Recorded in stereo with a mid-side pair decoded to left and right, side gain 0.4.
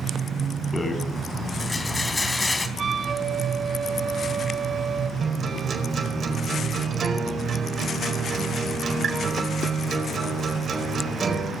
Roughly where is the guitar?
Ahead right.